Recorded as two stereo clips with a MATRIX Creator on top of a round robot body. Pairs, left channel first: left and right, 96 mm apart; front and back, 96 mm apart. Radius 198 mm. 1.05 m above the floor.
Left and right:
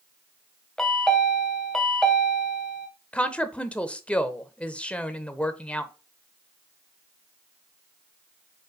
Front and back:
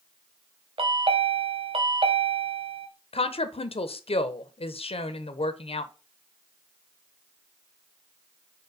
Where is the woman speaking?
10° left, 0.9 m.